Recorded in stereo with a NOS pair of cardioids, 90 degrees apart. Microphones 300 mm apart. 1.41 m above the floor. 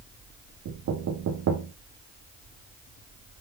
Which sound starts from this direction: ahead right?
Knocking, at 0.7 s.